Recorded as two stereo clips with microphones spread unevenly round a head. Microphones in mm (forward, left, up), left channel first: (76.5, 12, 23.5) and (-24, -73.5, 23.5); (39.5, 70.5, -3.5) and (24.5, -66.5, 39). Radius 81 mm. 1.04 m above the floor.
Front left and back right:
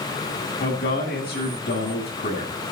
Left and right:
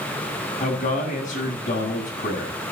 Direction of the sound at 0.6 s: 55° left.